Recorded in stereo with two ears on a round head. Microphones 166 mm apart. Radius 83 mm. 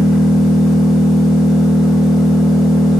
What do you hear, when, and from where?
0.0 s an engine running: centre (ahead or behind), 3.5 m